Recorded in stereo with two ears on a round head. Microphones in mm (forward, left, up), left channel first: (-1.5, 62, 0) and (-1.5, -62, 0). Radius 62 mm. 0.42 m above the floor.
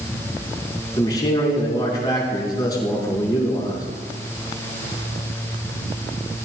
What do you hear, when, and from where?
1.0 s a man speaking: 30° left (ahead or behind), 5 m